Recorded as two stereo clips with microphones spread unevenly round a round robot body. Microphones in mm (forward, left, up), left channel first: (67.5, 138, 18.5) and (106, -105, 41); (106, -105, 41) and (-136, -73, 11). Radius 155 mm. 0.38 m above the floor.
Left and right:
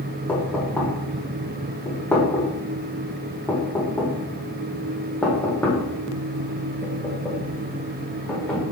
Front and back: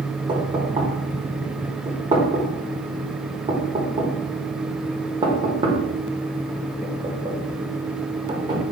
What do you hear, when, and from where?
0.3 s knocking: 165° left, 1.0 m